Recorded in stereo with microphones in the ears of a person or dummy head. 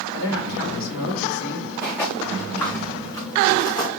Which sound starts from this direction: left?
A man speaking, at 0.1 s.